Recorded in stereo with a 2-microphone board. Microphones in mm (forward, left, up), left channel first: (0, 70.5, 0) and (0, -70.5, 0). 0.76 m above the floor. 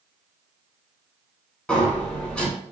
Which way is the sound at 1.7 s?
5° left (ahead or behind).